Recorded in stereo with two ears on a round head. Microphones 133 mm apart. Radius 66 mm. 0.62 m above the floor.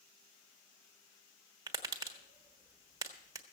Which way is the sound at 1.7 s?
25° right (ahead or behind).